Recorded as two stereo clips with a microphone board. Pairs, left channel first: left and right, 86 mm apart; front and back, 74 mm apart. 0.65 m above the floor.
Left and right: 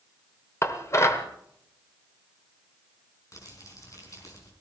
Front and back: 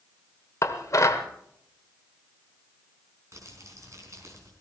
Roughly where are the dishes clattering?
Ahead left.